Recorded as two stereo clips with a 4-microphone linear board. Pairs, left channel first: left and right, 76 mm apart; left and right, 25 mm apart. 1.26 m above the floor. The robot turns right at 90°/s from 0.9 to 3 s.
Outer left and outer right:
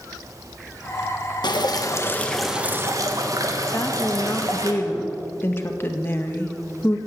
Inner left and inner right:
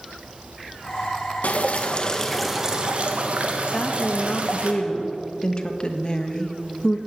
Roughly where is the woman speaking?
Left.